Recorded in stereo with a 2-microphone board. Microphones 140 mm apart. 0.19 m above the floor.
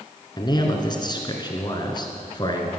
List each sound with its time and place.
0.4 s a man speaking: 30° left (ahead or behind), 2.5 m